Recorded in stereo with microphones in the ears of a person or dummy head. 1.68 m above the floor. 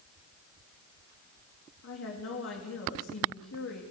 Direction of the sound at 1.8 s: 70° left (ahead or behind).